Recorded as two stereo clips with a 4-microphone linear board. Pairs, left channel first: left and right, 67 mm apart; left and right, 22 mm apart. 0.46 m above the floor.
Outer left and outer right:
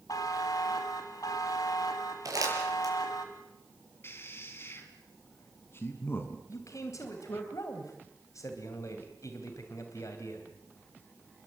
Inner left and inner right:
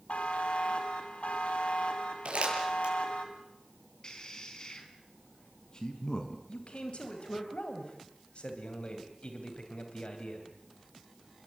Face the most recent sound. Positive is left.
turn(degrees=50)  # may be behind; listen again after turning